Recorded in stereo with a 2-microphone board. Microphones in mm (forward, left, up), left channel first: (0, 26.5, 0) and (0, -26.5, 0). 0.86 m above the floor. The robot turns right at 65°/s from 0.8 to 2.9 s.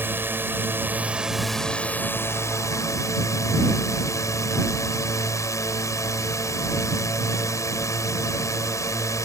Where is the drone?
45° right; by 9.2 s 95° left.